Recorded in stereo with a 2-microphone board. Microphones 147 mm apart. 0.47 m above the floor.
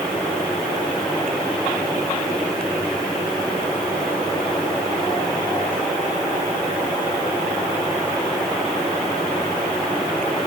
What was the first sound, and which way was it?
Only background noise.